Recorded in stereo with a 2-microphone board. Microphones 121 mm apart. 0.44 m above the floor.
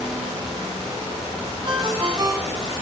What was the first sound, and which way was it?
A ringtone, 40° right (ahead or behind).